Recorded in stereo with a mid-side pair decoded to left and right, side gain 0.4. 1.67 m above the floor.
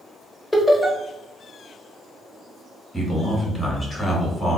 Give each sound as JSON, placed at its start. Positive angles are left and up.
{"t": 0.5, "sound": "laughter", "azimuth_deg": 20, "distance_m": 1.0}
{"t": 2.9, "sound": "a man speaking", "azimuth_deg": 20, "distance_m": 1.6}